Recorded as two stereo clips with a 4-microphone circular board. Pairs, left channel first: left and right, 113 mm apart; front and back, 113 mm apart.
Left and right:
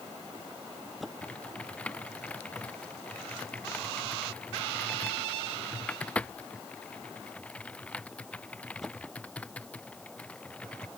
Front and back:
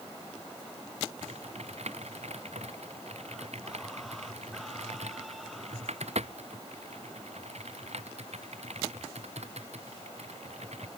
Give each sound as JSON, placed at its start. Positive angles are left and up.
{"t": 1.2, "sound": "typing on a keyboard", "azimuth_deg": 170}